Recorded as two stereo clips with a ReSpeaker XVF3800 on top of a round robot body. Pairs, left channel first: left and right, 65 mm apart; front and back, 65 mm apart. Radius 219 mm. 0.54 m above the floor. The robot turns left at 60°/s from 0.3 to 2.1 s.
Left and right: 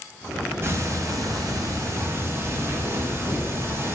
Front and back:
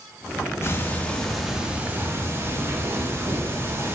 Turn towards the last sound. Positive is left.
turn(degrees=-135)